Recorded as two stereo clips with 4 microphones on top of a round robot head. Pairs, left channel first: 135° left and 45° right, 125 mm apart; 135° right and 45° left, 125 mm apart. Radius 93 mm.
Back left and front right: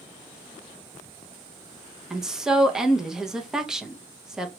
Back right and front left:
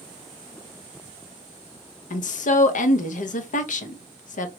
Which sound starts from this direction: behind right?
A woman speaking, at 2.1 s.